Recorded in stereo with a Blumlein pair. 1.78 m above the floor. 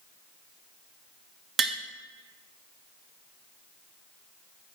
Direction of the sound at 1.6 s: 20° right.